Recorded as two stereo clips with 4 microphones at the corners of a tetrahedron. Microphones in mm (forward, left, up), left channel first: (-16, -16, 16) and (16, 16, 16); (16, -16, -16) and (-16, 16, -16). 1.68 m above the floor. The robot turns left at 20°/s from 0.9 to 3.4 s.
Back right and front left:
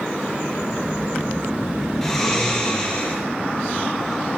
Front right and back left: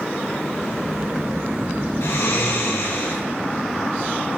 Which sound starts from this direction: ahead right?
Snoring, at 2.0 s.